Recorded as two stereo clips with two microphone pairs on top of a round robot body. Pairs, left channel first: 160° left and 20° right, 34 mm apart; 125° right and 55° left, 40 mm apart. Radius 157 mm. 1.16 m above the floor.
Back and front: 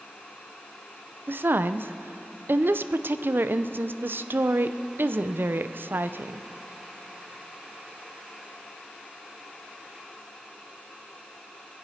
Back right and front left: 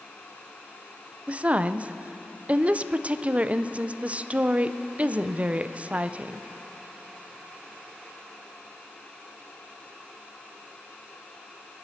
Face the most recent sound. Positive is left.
turn(degrees=-5)